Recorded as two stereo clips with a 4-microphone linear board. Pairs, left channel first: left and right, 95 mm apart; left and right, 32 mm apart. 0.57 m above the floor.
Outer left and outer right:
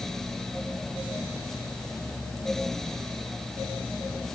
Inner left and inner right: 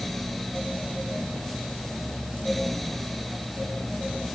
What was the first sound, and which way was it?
Only background noise.